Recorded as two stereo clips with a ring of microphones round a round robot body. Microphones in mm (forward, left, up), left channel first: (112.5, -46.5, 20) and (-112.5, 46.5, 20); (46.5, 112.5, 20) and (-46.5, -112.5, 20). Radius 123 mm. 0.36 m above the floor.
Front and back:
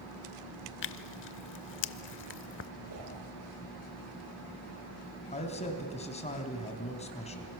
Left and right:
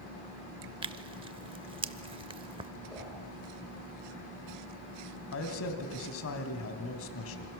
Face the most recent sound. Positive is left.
turn(degrees=40)